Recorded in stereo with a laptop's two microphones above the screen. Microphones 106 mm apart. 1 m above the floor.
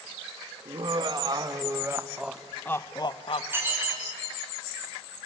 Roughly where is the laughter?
Right.